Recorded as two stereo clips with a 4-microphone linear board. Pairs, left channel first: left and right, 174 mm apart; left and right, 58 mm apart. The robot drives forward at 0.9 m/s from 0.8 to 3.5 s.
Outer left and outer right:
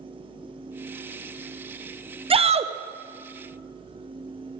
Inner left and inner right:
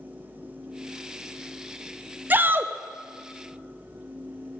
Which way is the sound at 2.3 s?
35° right (ahead or behind).